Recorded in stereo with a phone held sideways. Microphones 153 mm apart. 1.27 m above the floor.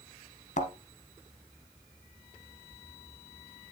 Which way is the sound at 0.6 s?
50° left (ahead or behind).